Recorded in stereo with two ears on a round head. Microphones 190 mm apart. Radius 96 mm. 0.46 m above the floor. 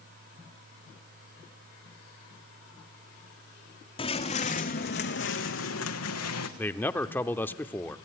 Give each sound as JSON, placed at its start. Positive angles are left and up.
{"t": 4.0, "sound": "footsteps", "side_deg": 25, "distance_m": 1.6}
{"t": 6.6, "sound": "a man speaking", "side_deg": 10, "distance_m": 0.8}